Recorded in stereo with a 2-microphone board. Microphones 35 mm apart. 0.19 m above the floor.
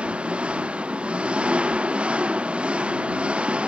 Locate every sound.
0.0 s an engine running: 35° right (ahead or behind)